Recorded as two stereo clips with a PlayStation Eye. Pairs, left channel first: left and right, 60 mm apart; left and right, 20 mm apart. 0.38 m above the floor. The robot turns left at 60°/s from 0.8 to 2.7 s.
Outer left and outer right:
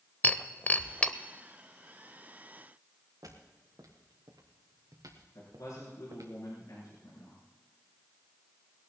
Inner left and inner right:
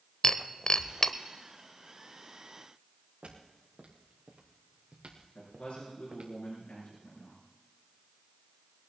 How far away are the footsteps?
About 4 m.